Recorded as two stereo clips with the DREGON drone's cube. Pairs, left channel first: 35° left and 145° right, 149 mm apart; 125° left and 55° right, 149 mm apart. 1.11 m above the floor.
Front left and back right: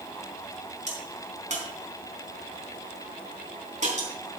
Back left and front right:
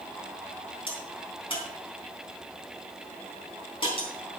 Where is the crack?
175° left, 3.5 m.